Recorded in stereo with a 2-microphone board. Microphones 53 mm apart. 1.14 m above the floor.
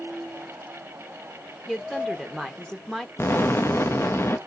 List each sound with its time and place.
1.7 s a woman speaking: 10° left (ahead or behind), 1.0 m
3.2 s an explosion: 50° left (ahead or behind), 0.8 m